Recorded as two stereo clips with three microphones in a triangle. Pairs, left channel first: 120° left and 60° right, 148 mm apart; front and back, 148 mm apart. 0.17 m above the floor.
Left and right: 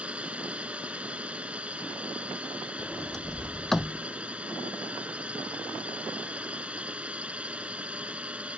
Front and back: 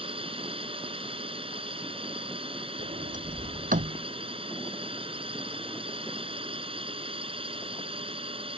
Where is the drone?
140° right.